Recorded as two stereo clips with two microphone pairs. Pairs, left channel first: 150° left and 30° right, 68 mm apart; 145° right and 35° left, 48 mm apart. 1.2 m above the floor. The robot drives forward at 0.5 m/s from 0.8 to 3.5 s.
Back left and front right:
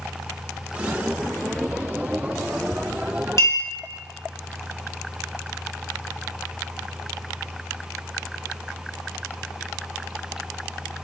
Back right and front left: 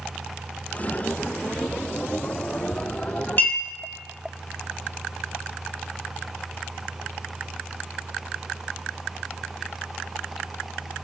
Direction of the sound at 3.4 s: 170° left.